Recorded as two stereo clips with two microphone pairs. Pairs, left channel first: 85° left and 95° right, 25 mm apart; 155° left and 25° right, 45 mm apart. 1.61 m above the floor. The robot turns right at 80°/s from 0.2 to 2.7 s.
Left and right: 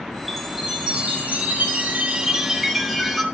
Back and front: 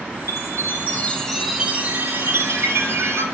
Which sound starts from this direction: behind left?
A chime, at 0.3 s.